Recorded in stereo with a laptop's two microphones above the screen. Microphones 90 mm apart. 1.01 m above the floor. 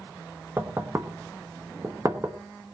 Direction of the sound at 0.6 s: 30° right (ahead or behind).